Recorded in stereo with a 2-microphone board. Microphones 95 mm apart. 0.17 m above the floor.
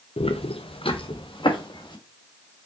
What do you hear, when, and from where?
0.2 s footsteps: 85° left, 0.9 m; by 2.0 s 50° left (ahead or behind), 1.8 m